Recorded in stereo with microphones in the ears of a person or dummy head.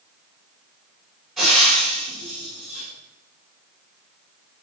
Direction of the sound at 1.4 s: Centre (ahead or behind).